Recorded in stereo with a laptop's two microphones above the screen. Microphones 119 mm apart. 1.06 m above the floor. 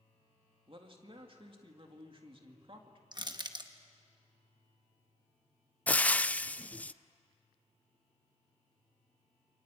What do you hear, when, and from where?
0.7 s a man speaking: 45° right (ahead or behind), 2 m
3.1 s crushing: 35° right (ahead or behind), 1.0 m
5.9 s frying: 10° left (ahead or behind), 0.5 m